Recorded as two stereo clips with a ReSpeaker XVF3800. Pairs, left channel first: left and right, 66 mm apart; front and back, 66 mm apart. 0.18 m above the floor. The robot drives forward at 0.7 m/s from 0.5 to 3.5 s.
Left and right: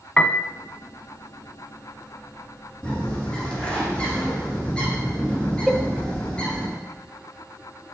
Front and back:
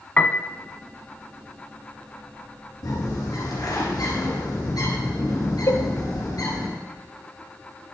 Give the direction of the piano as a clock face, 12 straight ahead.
11 o'clock.